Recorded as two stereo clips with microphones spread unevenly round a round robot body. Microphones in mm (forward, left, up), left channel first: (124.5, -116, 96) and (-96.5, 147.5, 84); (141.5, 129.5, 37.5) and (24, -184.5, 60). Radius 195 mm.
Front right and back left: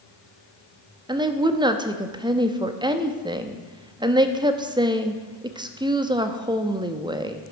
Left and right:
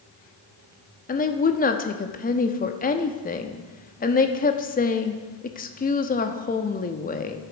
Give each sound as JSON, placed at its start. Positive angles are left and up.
{"t": 1.1, "sound": "a woman speaking", "azimuth_deg": 70, "distance_m": 1.0}